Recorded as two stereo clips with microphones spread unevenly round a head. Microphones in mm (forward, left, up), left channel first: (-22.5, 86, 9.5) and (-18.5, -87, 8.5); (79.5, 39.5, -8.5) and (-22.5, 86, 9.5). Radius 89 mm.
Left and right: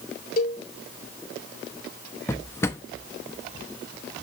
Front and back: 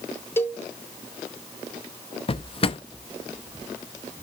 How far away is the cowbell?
About 1.9 m.